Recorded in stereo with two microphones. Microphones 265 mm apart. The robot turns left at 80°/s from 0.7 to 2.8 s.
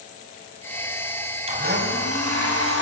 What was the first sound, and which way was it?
A blender, 25° right.